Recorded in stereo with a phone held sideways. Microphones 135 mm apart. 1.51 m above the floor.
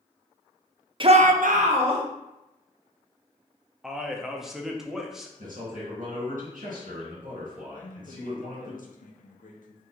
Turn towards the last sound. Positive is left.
turn(degrees=75)  # may be behind; listen again after turning